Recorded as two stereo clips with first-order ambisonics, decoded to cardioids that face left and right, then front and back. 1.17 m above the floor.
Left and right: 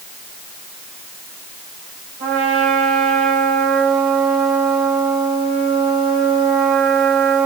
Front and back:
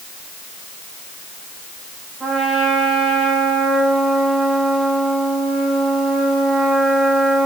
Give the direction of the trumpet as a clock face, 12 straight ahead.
4 o'clock.